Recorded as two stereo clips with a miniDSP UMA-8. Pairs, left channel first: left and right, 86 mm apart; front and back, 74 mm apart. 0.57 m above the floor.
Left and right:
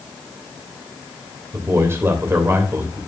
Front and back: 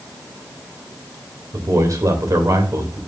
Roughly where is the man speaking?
Behind right.